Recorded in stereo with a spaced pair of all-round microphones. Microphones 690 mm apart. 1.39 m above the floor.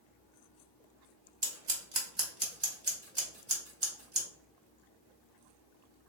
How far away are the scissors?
About 1.1 m.